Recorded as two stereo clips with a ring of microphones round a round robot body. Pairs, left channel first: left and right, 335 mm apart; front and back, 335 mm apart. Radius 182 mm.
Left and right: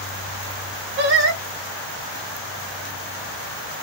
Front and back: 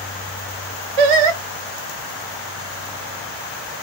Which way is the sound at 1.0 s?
155° right.